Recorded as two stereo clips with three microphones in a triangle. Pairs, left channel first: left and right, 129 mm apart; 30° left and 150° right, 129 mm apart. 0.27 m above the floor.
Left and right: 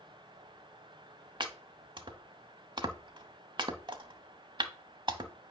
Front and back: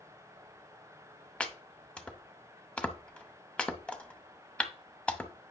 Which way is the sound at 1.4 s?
50° right.